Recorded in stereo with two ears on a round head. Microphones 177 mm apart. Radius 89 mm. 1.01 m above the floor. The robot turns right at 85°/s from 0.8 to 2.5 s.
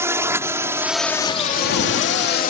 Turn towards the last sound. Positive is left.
turn(degrees=45)  # may be behind; listen again after turning